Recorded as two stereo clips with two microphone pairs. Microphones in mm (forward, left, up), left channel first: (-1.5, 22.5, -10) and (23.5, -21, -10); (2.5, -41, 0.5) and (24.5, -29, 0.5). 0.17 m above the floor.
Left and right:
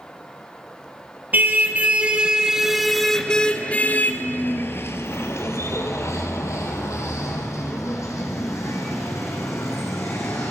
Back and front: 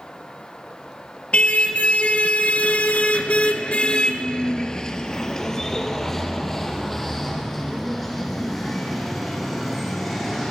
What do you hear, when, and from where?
1.3 s a car horn: 110° right, 2 m; by 10.5 s 120° left, 6.5 m